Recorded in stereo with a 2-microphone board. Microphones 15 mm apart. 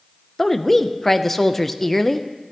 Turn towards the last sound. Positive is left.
turn(degrees=10)  # may be behind; listen again after turning